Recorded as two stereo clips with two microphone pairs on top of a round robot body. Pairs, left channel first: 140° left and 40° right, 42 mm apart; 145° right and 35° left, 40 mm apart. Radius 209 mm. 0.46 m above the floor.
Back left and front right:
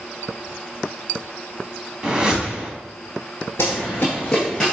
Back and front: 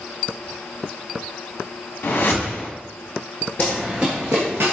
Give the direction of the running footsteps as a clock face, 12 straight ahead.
7 o'clock.